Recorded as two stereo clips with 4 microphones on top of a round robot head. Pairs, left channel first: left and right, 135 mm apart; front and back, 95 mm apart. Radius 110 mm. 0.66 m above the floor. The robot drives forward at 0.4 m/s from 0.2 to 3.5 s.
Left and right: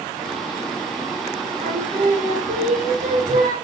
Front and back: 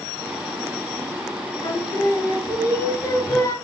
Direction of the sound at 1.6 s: 60° right.